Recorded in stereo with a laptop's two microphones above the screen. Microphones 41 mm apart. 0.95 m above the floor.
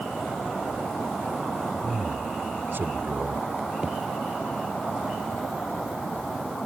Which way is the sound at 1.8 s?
60° right (ahead or behind).